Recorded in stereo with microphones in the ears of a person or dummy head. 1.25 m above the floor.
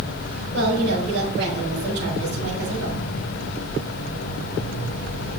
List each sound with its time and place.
0.5 s a woman speaking: 65° right (ahead or behind), 4 m